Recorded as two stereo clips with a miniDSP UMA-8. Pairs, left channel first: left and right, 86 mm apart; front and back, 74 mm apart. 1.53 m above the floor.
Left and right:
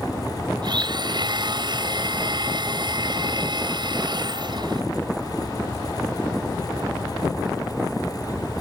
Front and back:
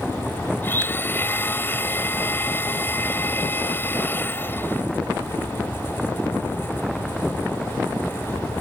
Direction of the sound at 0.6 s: 60° right.